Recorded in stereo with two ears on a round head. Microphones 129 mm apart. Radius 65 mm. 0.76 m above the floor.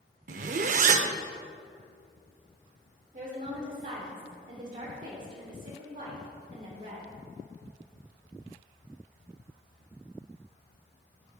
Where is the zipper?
55° right (ahead or behind), 0.6 m.